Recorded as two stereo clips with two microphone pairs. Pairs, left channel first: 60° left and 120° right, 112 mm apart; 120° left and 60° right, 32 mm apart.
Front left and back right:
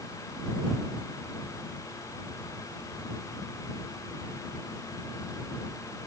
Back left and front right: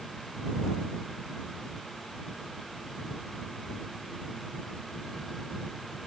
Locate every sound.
Only background noise.